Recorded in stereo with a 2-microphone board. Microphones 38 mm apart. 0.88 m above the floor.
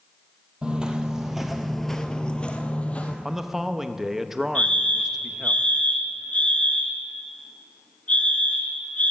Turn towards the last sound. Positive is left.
turn(degrees=40)  # may be behind; listen again after turning